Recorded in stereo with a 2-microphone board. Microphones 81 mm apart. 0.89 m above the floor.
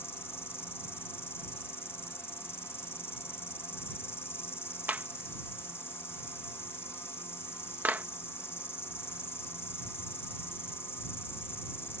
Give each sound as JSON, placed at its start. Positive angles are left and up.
{"t": 0.0, "sound": "an insect", "side_deg": 30}
{"t": 4.9, "sound": "a clap", "side_deg": -20}